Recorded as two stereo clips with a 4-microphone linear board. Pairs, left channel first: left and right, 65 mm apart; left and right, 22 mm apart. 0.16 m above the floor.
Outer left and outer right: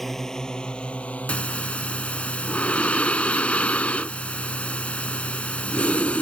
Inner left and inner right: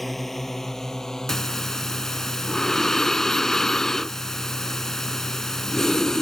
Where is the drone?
5° left (ahead or behind); by 6.2 s 50° left (ahead or behind).